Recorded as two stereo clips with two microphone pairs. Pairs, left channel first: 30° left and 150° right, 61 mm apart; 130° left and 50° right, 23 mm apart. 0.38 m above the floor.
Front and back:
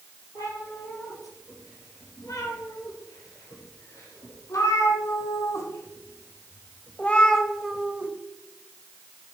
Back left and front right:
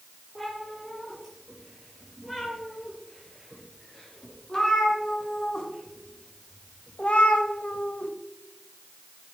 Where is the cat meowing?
45° left, 5 m; by 8.1 s 150° left, 0.9 m.